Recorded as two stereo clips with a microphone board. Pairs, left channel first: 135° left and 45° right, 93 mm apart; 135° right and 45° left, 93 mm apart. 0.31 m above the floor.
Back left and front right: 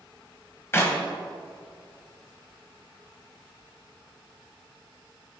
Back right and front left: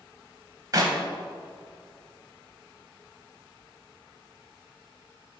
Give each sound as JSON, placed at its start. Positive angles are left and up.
{"t": 0.7, "sound": "a clap", "azimuth_deg": 80, "distance_m": 1.4}